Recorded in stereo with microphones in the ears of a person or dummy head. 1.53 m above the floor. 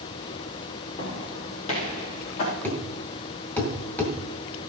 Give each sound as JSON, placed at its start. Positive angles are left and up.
{"t": 1.0, "sound": "footsteps", "side_deg": 35, "distance_m": 3.5}
{"t": 2.6, "sound": "a thud", "side_deg": 10, "distance_m": 2.0}